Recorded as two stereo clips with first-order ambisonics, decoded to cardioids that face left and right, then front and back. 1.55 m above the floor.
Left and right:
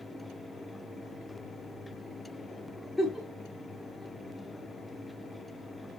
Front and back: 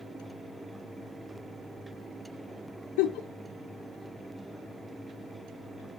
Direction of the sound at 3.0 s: 10° left.